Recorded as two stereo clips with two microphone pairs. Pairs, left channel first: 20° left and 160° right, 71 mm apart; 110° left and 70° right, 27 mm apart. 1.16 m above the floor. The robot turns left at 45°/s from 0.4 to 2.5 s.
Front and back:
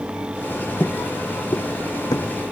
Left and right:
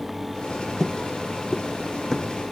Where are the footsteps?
30° left; by 2.3 s 15° left.